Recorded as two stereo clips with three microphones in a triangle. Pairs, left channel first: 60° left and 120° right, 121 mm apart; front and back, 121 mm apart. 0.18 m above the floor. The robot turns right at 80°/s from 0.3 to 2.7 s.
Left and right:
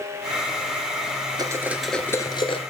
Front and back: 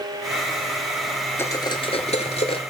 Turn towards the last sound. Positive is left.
turn(degrees=40)